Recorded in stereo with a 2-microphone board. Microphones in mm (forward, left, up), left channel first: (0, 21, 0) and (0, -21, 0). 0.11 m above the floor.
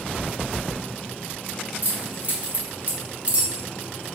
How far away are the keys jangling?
About 1.9 m.